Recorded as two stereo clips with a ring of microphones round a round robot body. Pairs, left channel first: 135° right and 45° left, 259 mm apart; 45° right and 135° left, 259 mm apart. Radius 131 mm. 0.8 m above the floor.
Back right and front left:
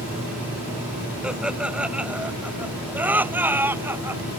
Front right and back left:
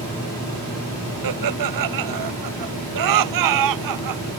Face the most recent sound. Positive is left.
turn(degrees=125)